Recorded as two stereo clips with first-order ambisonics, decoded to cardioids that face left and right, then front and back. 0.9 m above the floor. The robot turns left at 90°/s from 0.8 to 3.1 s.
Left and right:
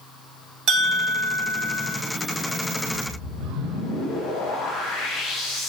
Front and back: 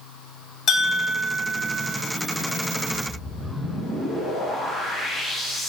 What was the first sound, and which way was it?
A bell, 45° right.